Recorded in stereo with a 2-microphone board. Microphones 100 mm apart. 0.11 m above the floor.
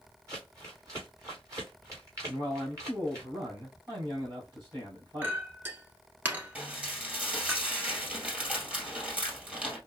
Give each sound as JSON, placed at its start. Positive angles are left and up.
{"t": 0.3, "sound": "crumpling", "side_deg": -35, "distance_m": 2.5}
{"t": 2.2, "sound": "a man speaking", "side_deg": -40, "distance_m": 3.5}
{"t": 5.2, "sound": "a clink", "side_deg": -20, "distance_m": 0.9}
{"t": 6.5, "sound": "dishes clattering", "side_deg": -10, "distance_m": 2.0}